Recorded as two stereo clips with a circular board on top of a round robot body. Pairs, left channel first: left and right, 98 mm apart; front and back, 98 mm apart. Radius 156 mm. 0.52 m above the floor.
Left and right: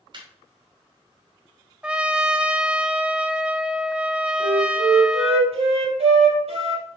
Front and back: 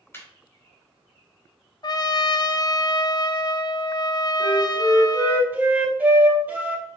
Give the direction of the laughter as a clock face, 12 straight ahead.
2 o'clock.